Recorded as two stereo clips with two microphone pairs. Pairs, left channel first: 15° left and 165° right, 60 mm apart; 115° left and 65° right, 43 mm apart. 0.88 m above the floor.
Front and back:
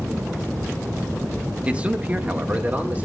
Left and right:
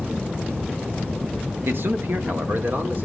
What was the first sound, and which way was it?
A man speaking, 95° right.